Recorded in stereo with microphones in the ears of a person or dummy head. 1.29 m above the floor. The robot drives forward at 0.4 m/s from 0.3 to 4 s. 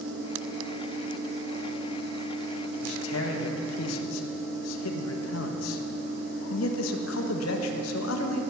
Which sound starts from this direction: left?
A man speaking, at 2.8 s.